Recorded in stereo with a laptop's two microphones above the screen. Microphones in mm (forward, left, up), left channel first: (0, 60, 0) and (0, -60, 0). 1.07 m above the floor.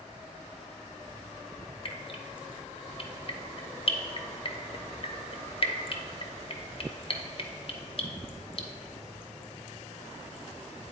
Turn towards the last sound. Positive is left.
turn(degrees=45)  # may be behind; listen again after turning